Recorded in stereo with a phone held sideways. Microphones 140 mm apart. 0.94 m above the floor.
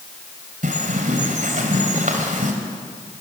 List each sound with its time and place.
0.6 s a bird: 70° right (ahead or behind), 3 m